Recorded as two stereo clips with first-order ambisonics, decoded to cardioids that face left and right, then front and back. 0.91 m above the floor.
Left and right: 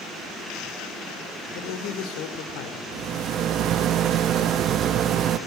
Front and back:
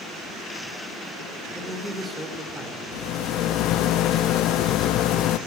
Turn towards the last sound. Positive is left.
turn(degrees=-40)